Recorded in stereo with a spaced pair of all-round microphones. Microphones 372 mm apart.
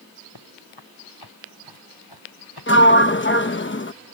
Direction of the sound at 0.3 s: 80° left.